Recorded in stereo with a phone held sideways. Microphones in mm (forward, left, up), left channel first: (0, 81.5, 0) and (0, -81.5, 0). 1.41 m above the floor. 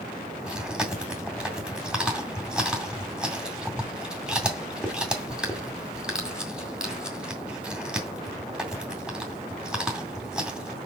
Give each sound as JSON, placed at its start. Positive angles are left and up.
{"t": 0.5, "sound": "chewing", "side_deg": -5, "distance_m": 2.0}